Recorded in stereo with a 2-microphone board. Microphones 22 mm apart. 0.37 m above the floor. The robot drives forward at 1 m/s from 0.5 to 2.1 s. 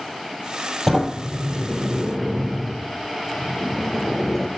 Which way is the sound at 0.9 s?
10° left (ahead or behind).